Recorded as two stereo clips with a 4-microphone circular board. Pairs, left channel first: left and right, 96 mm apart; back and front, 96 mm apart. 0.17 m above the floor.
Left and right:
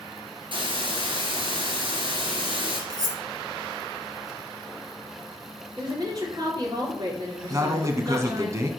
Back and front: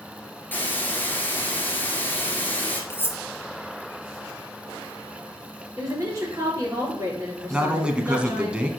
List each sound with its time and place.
0.5 s a hiss: 110° right, 2.0 m
2.9 s cutlery clinking: 120° right, 1.0 m
5.8 s a woman speaking: 50° right, 3 m
7.5 s a man speaking: 70° right, 1.2 m